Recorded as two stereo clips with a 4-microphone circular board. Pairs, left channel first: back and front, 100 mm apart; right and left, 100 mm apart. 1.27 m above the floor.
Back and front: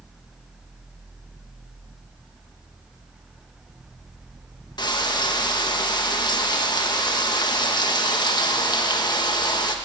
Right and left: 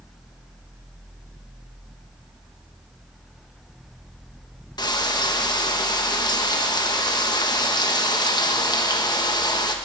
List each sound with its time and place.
4.8 s frying: 135° right, 1.2 m